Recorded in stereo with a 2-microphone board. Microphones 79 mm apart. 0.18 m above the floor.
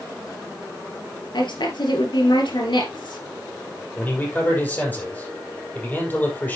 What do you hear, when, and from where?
1.3 s a woman speaking: 70° left (ahead or behind), 3 m
4.0 s a man speaking: 20° left (ahead or behind), 5.5 m